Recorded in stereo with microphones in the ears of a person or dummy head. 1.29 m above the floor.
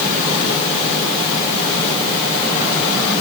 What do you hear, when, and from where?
Only background noise.